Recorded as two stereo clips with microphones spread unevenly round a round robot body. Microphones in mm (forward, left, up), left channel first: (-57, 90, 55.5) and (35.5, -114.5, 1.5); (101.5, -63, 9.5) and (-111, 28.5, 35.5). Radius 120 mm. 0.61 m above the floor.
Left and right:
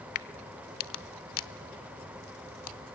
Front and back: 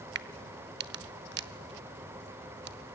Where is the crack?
110° left, 0.9 m.